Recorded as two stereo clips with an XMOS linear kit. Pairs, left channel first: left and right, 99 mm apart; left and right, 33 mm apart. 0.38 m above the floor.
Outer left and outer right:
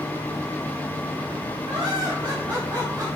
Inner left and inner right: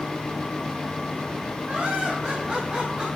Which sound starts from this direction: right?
Laughter, at 1.7 s.